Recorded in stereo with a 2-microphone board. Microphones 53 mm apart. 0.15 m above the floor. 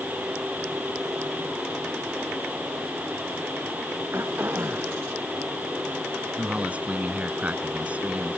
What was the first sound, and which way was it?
Throat clearing, 45° right (ahead or behind).